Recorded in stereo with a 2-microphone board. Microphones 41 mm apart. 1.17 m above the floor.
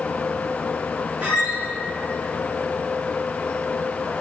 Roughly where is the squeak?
Right.